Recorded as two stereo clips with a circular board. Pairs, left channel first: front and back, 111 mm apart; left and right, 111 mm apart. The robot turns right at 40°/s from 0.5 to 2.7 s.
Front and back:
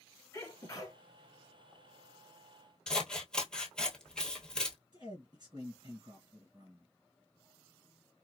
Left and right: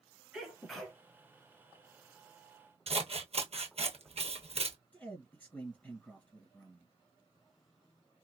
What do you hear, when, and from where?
0.3 s a sneeze: 5° right, 1.3 m; by 1.0 s 10° left, 1.3 m
2.9 s scissors: 80° right, 0.9 m
4.9 s a man speaking: 155° left, 2 m